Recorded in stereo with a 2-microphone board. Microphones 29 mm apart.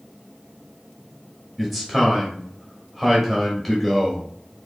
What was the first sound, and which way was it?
A man speaking, centre (ahead or behind).